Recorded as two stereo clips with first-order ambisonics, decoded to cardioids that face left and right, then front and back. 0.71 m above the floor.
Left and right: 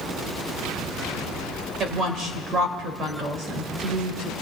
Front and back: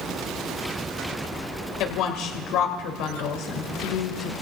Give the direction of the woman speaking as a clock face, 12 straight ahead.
1 o'clock.